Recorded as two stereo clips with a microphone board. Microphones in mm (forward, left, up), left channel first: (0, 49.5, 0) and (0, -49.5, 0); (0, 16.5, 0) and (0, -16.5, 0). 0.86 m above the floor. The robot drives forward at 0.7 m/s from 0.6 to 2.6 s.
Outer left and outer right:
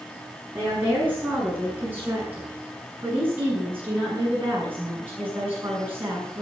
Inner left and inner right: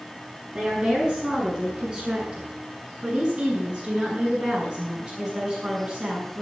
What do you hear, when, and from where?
0.5 s a woman speaking: 20° right (ahead or behind), 9.5 m